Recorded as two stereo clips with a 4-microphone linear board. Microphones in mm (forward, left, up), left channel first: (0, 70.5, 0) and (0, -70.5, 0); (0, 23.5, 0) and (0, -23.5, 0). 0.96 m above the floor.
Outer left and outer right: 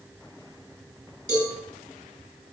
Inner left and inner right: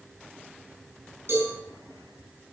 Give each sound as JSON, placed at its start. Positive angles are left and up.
{"t": 1.3, "sound": "a cowbell", "side_deg": -55, "distance_m": 8.5}